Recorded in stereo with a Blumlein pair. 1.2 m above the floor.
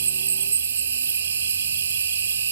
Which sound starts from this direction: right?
An insect, at 0.0 s.